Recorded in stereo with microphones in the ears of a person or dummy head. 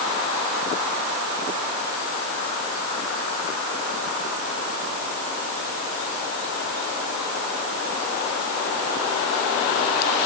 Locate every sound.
Only background noise.